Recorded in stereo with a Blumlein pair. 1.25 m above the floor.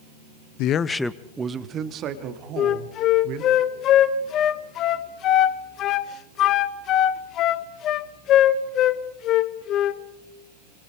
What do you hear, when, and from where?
0.6 s a man speaking: 45° left, 0.8 m; by 3.6 s 45° right, 4 m
2.6 s a flute: 35° left, 1.0 m